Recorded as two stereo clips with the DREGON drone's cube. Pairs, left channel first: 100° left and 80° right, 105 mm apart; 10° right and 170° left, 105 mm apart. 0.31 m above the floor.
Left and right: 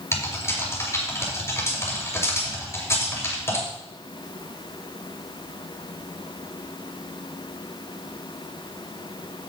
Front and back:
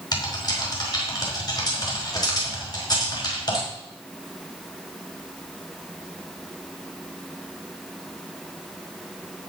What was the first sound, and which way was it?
Typing on a keyboard, 35° left.